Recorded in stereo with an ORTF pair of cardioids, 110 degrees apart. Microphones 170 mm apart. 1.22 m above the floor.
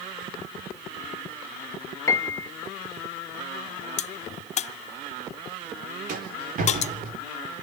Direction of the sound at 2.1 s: 20° left.